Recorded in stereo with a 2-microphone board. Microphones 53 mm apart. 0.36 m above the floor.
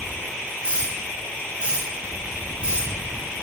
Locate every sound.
0.6 s a hiss: 20° right (ahead or behind), 1.1 m